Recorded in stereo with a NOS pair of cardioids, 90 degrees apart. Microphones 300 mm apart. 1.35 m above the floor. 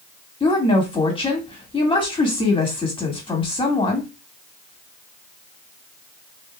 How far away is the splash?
No splash in this recording.